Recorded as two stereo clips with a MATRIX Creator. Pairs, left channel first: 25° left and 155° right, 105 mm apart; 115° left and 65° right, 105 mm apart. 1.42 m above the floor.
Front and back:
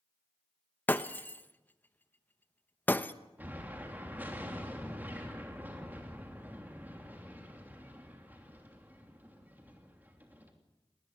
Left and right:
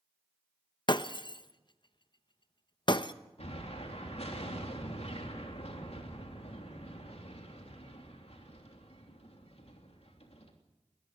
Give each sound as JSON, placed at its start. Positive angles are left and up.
{"t": 0.9, "sound": "breaking glass", "azimuth_deg": 90, "distance_m": 0.8}
{"t": 3.4, "sound": "an explosion", "azimuth_deg": 130, "distance_m": 3.0}